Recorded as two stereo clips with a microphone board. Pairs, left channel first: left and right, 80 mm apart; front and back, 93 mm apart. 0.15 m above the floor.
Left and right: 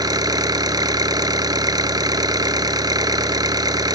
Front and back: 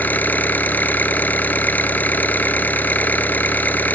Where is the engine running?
70° right, 1.1 m.